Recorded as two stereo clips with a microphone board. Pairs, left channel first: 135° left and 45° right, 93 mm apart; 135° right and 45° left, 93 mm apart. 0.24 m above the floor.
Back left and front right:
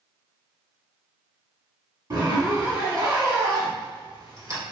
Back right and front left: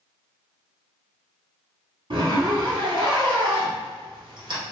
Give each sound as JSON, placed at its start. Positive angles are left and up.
{"t": 2.1, "sound": "a zipper", "azimuth_deg": 5, "distance_m": 1.6}